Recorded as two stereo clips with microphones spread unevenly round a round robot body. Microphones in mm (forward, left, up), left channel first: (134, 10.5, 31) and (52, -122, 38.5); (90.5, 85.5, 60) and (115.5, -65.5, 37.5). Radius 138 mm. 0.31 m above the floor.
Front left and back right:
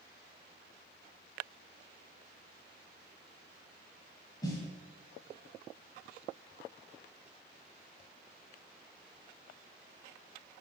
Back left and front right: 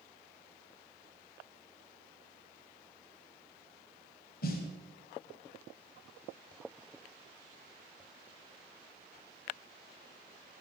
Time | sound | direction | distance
4.4 | a snare drum | 130° left | 1.3 m